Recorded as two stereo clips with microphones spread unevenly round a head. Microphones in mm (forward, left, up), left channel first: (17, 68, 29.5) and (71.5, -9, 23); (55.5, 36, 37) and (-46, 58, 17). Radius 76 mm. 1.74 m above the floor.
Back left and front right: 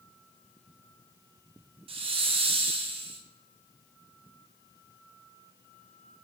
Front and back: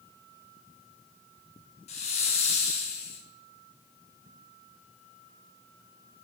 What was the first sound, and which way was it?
A hiss, 40° right.